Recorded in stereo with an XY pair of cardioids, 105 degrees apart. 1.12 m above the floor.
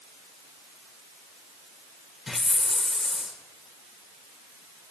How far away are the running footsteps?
No running footsteps in this recording.